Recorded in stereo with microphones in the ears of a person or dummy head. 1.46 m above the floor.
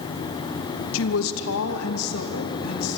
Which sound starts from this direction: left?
A woman speaking, at 0.9 s.